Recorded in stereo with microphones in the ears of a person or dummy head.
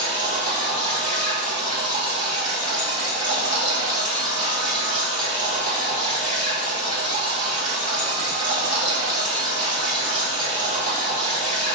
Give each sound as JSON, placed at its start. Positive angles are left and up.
{"t": 0.0, "sound": "running water", "side_deg": -35, "distance_m": 1.3}